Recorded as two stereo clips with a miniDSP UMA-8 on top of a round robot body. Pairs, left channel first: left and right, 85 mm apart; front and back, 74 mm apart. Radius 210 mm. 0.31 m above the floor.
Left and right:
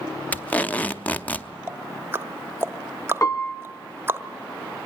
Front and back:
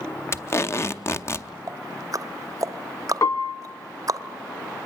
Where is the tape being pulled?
25° left, 1.0 m.